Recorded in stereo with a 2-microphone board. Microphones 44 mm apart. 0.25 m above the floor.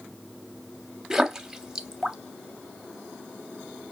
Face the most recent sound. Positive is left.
turn(degrees=-15)  # may be behind; listen again after turning